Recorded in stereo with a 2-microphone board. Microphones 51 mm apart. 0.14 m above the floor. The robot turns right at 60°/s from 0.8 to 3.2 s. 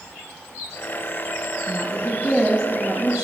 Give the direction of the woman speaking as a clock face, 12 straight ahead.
8 o'clock.